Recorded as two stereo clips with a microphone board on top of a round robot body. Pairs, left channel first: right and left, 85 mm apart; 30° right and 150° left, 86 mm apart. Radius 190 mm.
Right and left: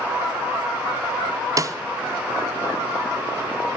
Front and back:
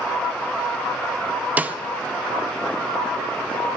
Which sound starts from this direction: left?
A snare drum, at 1.6 s.